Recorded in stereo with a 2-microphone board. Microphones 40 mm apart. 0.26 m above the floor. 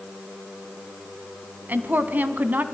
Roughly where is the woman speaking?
Right.